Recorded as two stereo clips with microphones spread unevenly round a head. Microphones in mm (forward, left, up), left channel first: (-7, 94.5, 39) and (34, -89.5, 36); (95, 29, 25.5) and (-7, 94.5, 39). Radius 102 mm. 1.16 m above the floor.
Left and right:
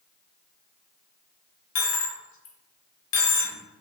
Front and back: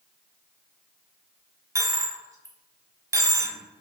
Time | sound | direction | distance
1.8 | a dropped coin | 85° left | 1.3 m